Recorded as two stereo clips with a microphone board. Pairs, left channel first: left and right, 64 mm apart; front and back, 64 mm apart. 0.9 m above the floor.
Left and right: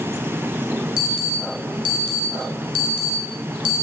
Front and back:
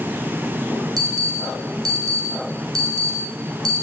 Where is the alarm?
165° right, 5 m.